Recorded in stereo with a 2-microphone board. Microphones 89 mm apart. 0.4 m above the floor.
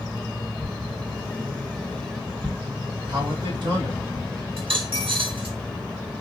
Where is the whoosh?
65° right (ahead or behind), 1.7 m.